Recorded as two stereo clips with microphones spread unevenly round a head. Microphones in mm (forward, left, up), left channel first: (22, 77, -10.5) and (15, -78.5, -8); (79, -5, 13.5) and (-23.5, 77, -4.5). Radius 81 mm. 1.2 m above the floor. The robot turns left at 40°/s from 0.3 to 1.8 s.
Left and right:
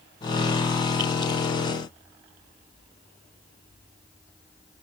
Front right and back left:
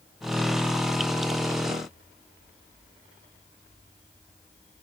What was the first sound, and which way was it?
Only background noise.